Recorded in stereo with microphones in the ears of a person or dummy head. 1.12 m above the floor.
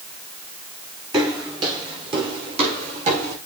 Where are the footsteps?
20° right (ahead or behind), 6 m; by 3.4 s 45° right (ahead or behind), 4.5 m.